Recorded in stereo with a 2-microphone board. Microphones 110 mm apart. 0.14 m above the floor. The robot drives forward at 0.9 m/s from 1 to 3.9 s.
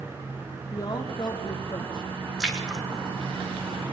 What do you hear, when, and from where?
0.7 s a woman speaking: 40° left (ahead or behind), 6.5 m; by 2.1 s 45° left (ahead or behind), 5.5 m
2.4 s a splash: 5° right (ahead or behind), 2.5 m